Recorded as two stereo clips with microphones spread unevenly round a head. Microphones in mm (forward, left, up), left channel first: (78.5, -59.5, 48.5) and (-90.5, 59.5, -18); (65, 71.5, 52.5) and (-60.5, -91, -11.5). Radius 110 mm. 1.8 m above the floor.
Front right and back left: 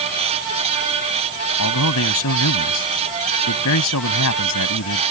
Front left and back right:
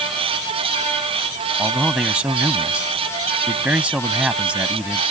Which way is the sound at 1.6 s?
40° right.